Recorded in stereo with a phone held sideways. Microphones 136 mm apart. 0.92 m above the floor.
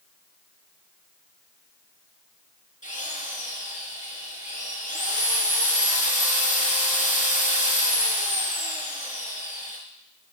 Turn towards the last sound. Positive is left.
turn(degrees=65)  # may be behind; listen again after turning